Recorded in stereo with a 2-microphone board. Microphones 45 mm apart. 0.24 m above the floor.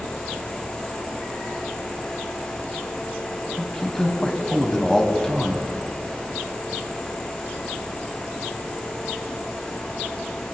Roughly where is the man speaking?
Centre.